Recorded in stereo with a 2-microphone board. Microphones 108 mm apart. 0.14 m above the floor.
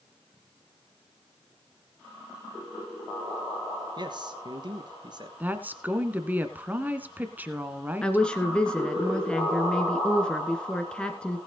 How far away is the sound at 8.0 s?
About 1.7 m.